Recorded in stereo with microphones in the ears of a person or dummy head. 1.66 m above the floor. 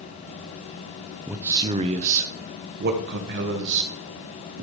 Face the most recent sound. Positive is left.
turn(degrees=-65)  # may be behind; listen again after turning